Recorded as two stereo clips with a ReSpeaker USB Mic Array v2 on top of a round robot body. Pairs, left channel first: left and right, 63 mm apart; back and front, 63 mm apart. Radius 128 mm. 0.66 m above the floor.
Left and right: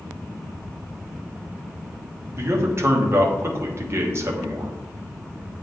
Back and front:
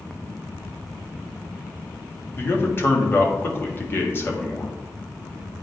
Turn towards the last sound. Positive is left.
turn(degrees=-130)